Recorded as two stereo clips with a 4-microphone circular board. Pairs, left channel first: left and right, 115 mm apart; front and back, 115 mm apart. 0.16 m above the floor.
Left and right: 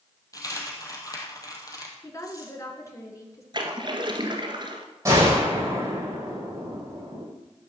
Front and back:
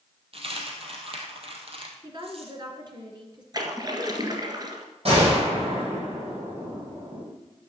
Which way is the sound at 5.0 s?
150° right.